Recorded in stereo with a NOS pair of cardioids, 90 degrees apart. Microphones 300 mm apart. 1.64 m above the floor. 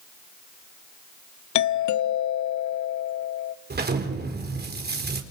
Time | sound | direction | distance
1.6 | a doorbell | 70° left | 0.9 m
3.7 | an explosion | 35° right | 4 m